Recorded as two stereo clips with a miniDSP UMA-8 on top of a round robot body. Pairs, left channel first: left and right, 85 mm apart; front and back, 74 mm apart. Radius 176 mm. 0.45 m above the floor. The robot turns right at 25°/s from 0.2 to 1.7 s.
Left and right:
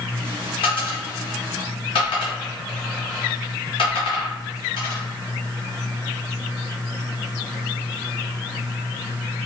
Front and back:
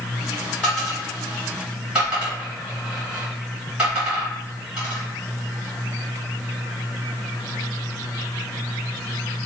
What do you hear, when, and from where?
0.6 s a dropped coin: 75° left, 1.8 m; by 5.0 s 100° left, 1.8 m